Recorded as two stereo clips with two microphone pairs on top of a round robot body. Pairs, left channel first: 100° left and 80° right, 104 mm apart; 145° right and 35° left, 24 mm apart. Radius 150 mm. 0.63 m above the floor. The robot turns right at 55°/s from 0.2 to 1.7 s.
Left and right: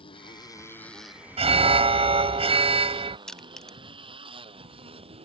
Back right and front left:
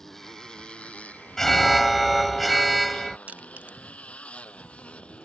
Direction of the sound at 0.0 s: 140° left.